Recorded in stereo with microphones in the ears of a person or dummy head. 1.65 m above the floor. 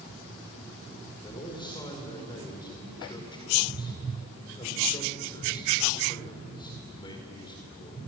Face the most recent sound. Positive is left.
turn(degrees=30)  # may be behind; listen again after turning